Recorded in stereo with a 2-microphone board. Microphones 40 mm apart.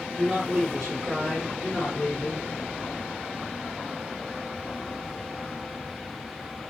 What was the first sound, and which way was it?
A man speaking, 5° right (ahead or behind).